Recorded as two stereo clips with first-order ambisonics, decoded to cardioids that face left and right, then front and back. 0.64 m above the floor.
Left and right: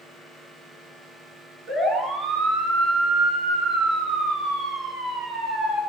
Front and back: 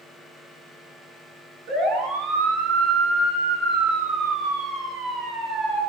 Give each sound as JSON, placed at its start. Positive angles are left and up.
{"t": 1.7, "sound": "a siren", "azimuth_deg": -145, "distance_m": 9.5}